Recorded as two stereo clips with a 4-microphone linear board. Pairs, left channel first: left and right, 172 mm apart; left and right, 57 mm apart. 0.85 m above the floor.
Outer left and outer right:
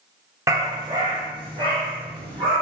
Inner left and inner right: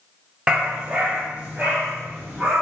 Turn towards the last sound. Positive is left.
turn(degrees=-30)  # may be behind; listen again after turning